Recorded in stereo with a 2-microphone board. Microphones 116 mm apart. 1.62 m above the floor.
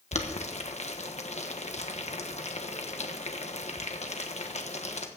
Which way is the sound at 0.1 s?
75° left (ahead or behind).